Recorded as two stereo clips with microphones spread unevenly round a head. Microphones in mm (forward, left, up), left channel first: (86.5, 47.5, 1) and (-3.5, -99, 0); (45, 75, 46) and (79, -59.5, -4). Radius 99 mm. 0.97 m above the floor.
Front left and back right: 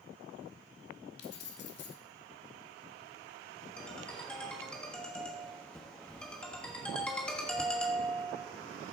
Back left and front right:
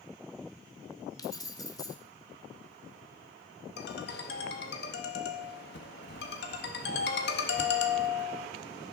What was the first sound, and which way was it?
Keys jangling, 40° left.